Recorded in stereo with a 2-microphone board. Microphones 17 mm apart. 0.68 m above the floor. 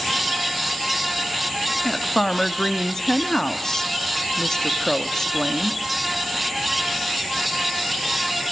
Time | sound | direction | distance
1.8 | a woman speaking | 30° left (ahead or behind) | 1.4 m